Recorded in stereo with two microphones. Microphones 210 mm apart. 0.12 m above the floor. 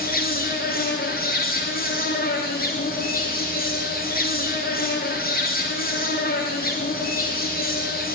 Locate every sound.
0.0 s an insect: 45° left (ahead or behind), 7 m